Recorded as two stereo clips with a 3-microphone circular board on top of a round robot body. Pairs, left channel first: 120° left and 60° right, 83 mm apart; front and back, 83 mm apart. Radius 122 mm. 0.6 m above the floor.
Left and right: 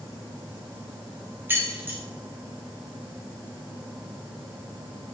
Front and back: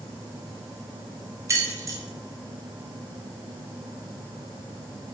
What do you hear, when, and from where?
1.5 s keys jangling: 125° right, 1.1 m